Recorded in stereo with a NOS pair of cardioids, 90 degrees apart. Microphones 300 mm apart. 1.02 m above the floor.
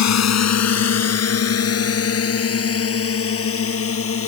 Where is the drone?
60° left; by 4.3 s 45° left.